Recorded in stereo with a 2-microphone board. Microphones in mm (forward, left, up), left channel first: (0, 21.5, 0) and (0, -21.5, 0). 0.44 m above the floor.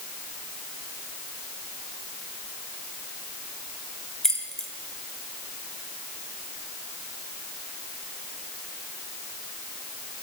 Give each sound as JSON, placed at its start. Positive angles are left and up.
{"t": 4.2, "sound": "keys jangling", "side_deg": 10, "distance_m": 1.5}